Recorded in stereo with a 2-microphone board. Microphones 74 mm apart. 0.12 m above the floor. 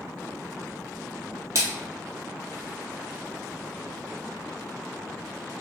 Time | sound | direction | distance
1.6 | a splash | 40° right (ahead or behind) | 1.2 m